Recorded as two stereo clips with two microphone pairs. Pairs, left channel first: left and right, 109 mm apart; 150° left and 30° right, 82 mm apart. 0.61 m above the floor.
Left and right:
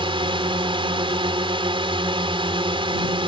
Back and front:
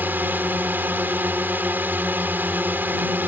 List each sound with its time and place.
0.0 s a drone: 90° right